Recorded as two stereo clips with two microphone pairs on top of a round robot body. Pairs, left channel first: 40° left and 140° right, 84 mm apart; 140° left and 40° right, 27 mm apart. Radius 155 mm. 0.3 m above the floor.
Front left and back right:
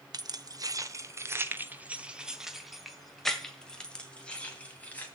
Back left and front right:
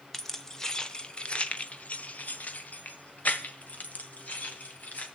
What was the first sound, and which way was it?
Keys jangling, 140° right.